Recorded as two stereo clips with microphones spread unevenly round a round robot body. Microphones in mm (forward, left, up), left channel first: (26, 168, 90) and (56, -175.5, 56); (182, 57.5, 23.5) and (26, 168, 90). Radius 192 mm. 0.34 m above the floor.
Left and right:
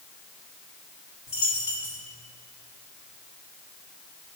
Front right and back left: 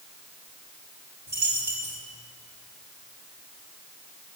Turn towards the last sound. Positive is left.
turn(degrees=115)